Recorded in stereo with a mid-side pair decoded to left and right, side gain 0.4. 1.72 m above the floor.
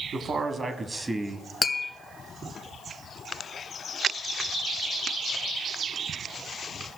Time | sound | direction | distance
0.1 | a man speaking | 50° right | 1.4 m
1.6 | tapping | 35° left | 0.9 m